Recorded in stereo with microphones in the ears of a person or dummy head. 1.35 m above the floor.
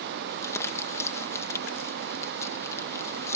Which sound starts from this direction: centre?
Crumpling, at 0.3 s.